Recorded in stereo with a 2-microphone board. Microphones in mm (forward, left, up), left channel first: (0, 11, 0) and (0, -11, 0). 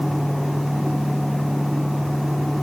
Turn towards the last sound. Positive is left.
No sound to turn to.